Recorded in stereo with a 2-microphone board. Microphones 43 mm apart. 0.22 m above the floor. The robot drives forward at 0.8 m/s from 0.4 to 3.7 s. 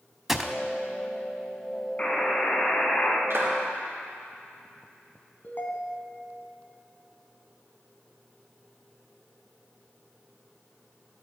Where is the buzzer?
25° left (ahead or behind), 1.4 m; by 3.2 s 40° left (ahead or behind), 1.1 m.